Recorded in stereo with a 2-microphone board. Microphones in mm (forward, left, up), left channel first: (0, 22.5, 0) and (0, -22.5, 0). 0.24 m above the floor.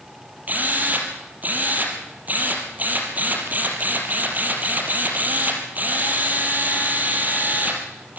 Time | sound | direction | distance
0.5 | a drill | 40° right (ahead or behind) | 4 m